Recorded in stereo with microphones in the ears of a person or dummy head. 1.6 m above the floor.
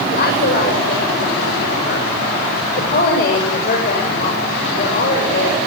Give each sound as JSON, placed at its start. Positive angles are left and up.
{"t": 0.1, "sound": "a woman speaking", "side_deg": 60, "distance_m": 7.0}